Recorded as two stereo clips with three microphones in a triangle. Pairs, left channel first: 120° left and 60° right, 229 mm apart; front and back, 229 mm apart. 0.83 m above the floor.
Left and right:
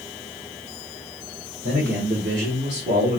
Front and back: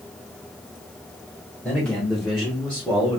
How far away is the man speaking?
About 2.5 m.